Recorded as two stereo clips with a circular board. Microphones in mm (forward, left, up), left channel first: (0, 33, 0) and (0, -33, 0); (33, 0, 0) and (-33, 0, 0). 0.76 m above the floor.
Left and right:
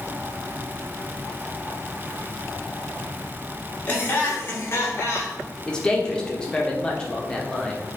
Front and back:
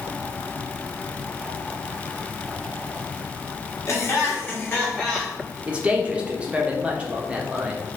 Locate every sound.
3.9 s laughter: 35° left, 1.7 m; by 5.4 s 80° left, 1.4 m
5.7 s a man speaking: 140° left, 0.8 m